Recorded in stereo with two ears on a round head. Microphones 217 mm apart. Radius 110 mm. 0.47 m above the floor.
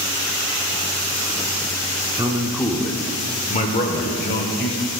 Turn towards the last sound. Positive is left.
turn(degrees=45)  # may be behind; listen again after turning